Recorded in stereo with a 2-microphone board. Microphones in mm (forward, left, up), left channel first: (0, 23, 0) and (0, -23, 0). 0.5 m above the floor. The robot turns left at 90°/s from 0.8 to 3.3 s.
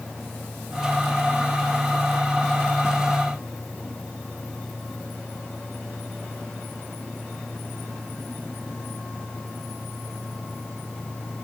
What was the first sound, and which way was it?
Only background noise.